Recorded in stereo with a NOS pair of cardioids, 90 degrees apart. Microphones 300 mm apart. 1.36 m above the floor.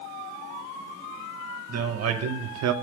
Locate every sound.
1.7 s a man speaking: 50° right, 1.2 m; by 2.7 s 65° right, 0.6 m